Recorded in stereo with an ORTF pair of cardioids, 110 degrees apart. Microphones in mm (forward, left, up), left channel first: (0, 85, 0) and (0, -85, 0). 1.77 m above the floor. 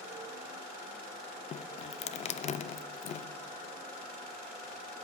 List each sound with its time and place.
1.5 s dripping: 40° left, 0.5 m